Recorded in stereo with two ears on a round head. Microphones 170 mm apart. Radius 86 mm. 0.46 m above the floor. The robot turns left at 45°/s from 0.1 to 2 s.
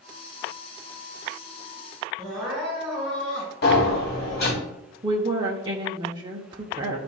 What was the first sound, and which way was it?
Crying, 5° left (ahead or behind).